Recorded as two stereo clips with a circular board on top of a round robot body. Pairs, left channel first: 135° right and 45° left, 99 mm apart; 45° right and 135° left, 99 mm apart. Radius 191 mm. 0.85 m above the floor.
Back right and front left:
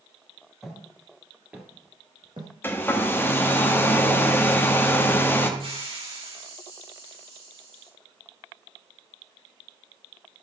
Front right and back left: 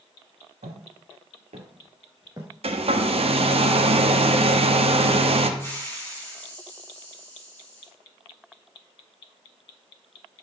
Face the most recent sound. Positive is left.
turn(degrees=20)